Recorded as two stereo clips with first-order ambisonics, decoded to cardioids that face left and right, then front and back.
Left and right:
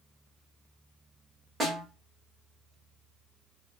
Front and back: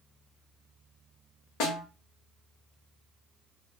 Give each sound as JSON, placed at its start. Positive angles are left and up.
{"t": 1.6, "sound": "a snare drum", "azimuth_deg": -10, "distance_m": 1.0}